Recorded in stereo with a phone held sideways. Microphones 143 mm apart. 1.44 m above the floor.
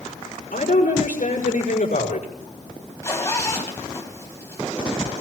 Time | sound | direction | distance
0.5 | a woman speaking | 75° left (ahead or behind) | 5.5 m
3.0 | a zipper | 20° left (ahead or behind) | 4 m